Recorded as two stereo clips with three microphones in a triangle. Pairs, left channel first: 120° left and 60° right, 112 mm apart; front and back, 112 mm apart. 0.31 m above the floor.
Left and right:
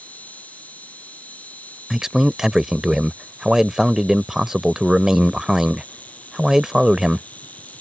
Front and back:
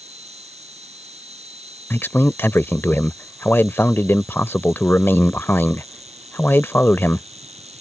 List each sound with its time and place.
0.0 s an insect: 165° right
1.9 s a man speaking: 20° left